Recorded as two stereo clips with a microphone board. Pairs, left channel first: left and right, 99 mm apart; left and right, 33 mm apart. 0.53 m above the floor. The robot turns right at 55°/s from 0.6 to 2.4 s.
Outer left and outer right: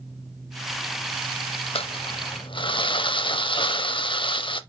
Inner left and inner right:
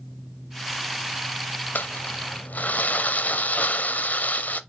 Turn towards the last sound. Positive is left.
turn(degrees=115)